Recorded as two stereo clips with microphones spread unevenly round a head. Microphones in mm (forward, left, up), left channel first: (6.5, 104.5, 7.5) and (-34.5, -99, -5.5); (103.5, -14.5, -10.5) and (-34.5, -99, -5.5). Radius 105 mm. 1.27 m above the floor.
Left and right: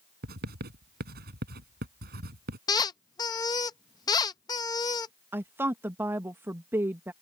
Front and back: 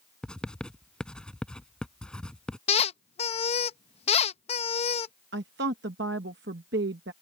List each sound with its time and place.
0.2 s writing: 55° right
2.7 s a squeak: 25° left
5.3 s a woman speaking: straight behind